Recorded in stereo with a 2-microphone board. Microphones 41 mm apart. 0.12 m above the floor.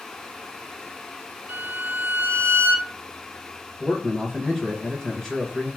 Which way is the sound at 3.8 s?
15° left (ahead or behind).